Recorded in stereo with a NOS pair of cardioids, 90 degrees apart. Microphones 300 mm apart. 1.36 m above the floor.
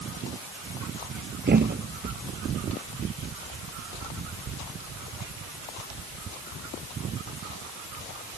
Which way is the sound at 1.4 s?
30° right.